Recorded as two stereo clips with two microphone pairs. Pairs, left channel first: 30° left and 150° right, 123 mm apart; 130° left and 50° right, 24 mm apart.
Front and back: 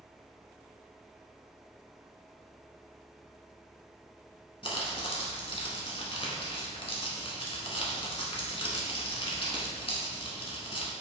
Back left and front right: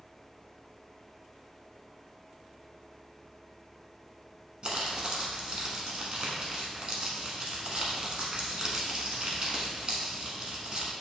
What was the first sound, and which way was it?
Crumpling, 5° right.